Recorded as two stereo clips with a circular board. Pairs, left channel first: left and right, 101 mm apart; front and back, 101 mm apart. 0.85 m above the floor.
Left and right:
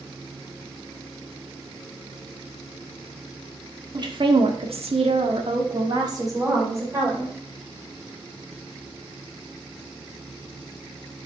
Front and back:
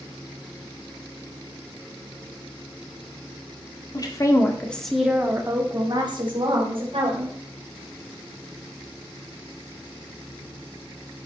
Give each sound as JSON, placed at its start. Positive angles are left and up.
{"t": 3.9, "sound": "a woman speaking", "azimuth_deg": -45, "distance_m": 1.9}